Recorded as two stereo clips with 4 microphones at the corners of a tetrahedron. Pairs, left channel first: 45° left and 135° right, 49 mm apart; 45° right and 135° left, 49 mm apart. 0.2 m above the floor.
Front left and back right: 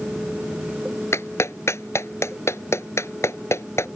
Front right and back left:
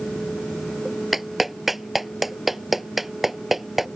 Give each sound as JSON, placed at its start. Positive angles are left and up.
{"t": 1.1, "sound": "a clap", "azimuth_deg": 45}